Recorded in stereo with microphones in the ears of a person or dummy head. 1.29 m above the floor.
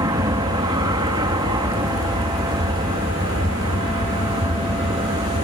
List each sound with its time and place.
0.0 s an aircraft: 20° right (ahead or behind); by 5.4 s 25° right (ahead or behind)